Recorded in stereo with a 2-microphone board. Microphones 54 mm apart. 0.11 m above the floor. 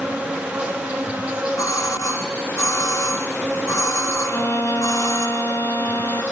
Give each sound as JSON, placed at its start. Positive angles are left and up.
{"t": 0.0, "sound": "an insect", "side_deg": -20, "distance_m": 5.0}
{"t": 1.6, "sound": "a doorbell", "side_deg": 75, "distance_m": 7.0}
{"t": 4.3, "sound": "a violin", "side_deg": 55, "distance_m": 2.5}